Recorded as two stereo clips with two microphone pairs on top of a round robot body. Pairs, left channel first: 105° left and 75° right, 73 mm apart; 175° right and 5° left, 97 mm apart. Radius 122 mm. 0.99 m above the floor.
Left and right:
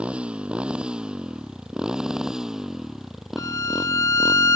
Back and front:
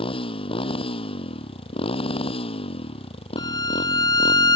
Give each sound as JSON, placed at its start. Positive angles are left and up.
{"t": 0.0, "sound": "a motorcycle", "azimuth_deg": -155}
{"t": 3.4, "sound": "a violin", "azimuth_deg": 145}